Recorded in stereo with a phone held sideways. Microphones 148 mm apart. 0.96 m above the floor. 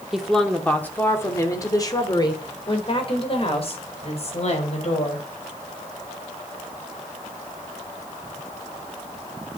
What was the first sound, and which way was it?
A woman speaking, centre (ahead or behind).